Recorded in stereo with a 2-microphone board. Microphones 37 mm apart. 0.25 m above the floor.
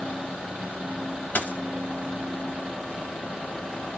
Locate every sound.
1.4 s a dropped coin: 55° left (ahead or behind), 0.9 m